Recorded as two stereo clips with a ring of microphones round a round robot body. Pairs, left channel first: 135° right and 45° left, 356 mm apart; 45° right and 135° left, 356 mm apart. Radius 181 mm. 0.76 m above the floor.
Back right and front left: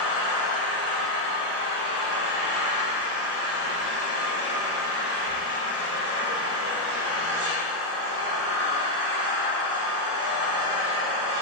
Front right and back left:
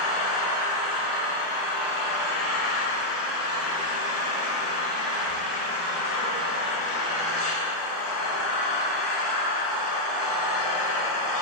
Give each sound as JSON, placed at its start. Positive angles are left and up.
{"t": 0.0, "sound": "an engine running", "azimuth_deg": -10, "distance_m": 2.5}